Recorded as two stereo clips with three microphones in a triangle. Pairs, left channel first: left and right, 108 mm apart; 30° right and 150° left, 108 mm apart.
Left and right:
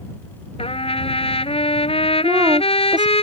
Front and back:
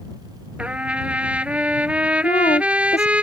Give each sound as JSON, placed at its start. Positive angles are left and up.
{"t": 0.6, "sound": "a trumpet", "azimuth_deg": 70}
{"t": 2.2, "sound": "a woman speaking", "azimuth_deg": -40}